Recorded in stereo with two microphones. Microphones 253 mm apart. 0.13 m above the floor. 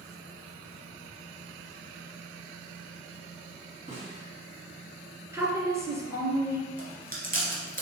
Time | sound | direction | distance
3.9 | a snare drum | 30° right (ahead or behind) | 1.8 m
5.3 | a woman speaking | 10° right (ahead or behind) | 1.7 m
6.8 | chewing | 35° right (ahead or behind) | 1.9 m